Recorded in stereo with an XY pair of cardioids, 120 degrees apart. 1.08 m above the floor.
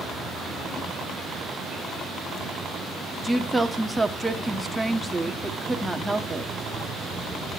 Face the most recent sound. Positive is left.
turn(degrees=-5)